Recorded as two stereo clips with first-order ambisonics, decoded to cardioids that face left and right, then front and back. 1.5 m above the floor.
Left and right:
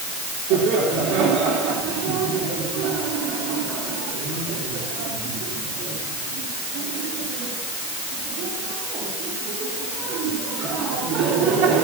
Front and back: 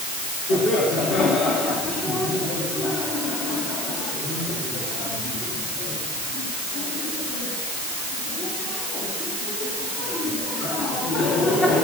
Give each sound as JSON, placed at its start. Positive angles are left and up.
{"t": 0.5, "sound": "laughter", "azimuth_deg": -55, "distance_m": 3.5}